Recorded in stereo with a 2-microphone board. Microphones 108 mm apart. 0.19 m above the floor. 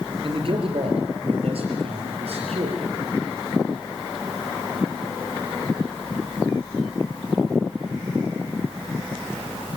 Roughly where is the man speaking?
Right.